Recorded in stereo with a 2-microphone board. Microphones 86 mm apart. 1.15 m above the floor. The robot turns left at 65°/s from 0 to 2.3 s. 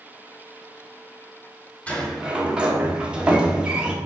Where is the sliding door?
20° left (ahead or behind), 1.0 m; by 4.0 s 10° right (ahead or behind), 1.0 m.